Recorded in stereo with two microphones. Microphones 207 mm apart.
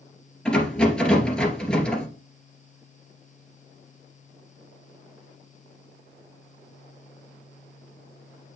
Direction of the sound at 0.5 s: 5° left (ahead or behind).